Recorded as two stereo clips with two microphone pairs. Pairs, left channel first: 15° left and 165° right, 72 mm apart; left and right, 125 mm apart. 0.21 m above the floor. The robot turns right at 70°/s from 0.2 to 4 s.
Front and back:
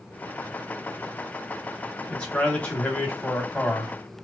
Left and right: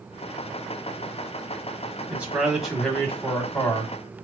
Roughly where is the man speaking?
Ahead right.